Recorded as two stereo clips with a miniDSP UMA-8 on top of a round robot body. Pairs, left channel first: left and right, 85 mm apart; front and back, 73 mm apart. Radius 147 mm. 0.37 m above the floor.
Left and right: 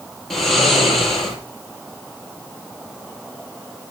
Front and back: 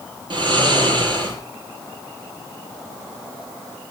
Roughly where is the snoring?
Behind.